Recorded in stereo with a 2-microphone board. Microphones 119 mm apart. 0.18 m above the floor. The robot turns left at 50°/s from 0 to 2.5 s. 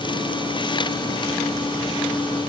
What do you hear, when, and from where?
Only background noise.